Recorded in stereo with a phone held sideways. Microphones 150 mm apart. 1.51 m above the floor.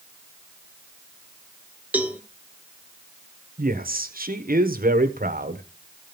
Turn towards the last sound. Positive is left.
turn(degrees=-70)  # may be behind; listen again after turning